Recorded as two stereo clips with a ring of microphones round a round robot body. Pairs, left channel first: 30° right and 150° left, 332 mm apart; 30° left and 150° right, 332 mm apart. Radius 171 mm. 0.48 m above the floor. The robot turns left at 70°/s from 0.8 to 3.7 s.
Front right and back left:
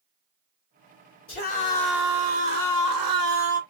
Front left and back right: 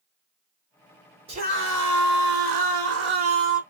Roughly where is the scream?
Right.